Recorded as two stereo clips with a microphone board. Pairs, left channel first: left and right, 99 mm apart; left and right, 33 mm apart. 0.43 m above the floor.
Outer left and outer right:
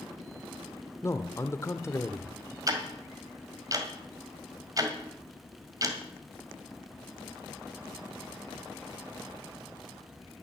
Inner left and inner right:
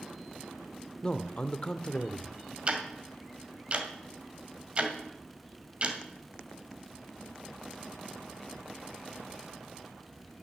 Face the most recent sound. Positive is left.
turn(degrees=-35)  # may be behind; listen again after turning